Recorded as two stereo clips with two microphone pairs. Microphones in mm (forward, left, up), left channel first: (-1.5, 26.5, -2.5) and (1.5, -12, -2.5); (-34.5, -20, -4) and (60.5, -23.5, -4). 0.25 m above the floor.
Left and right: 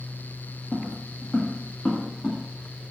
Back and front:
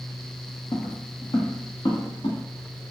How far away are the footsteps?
About 0.7 m.